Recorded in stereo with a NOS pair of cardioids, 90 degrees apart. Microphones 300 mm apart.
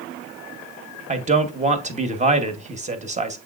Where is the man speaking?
20° right, 1.1 m.